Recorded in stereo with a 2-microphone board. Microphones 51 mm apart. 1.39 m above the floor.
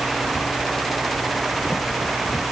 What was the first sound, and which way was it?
Only background noise.